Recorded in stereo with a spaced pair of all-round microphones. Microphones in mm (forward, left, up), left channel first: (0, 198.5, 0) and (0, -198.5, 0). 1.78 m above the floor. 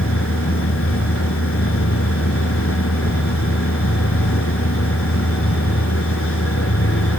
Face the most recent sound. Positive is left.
turn(degrees=30)  # may be behind; listen again after turning